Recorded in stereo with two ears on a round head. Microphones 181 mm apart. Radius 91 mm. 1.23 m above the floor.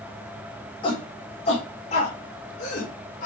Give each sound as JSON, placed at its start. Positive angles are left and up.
{"t": 0.8, "sound": "a shout", "side_deg": 25, "distance_m": 4.5}